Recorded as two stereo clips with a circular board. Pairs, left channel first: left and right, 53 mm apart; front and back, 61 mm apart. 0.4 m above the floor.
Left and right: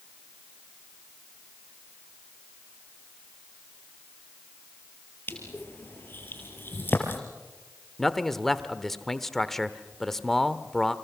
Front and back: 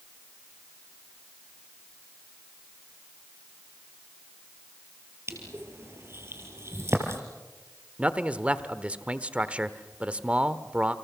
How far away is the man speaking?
About 0.9 m.